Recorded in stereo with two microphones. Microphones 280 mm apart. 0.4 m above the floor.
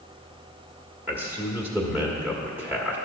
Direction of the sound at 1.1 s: 5° right (ahead or behind).